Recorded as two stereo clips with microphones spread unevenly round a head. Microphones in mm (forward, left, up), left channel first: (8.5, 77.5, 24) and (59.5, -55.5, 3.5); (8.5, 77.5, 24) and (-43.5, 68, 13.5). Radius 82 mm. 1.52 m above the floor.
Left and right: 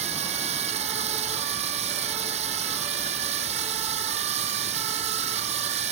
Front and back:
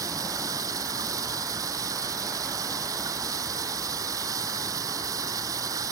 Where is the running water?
125° right.